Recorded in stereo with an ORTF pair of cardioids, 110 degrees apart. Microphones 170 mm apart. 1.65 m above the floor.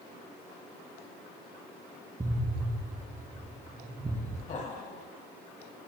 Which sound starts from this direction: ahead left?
Laughter, at 4.5 s.